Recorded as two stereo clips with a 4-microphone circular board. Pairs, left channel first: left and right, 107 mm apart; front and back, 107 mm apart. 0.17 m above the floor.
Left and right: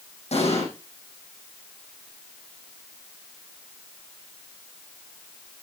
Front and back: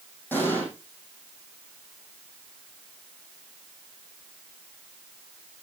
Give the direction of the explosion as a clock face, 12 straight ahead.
10 o'clock.